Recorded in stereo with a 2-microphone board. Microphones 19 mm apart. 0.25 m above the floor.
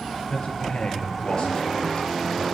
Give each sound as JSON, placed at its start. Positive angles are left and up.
{"t": 0.3, "sound": "a man speaking", "side_deg": 60, "distance_m": 4.0}